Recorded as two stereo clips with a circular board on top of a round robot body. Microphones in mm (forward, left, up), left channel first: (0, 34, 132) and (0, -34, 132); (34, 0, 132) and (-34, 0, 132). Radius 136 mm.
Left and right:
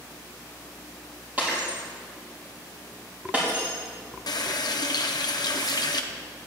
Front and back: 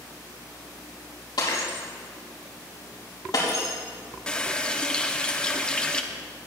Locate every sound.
1.4 s breaking glass: 20° right, 4.5 m
4.3 s a running tap: 75° left, 0.9 m